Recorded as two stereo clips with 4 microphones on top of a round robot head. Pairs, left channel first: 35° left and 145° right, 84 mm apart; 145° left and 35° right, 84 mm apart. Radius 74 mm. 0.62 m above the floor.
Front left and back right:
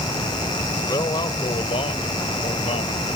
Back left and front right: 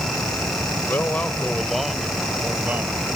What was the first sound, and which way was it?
A man speaking, 80° left.